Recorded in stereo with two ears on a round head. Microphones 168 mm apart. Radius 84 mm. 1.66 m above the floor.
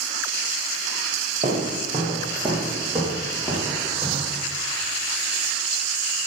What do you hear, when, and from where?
1.4 s footsteps: 25° right (ahead or behind), 1.8 m; by 4.4 s 10° left (ahead or behind), 3.5 m